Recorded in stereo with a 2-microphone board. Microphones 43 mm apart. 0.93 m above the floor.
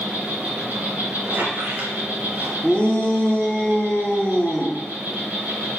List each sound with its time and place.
0.0 s an insect: 40° right (ahead or behind), 3 m
1.2 s a squeak: 50° right (ahead or behind), 2 m
2.6 s a shout: 15° left (ahead or behind), 1.6 m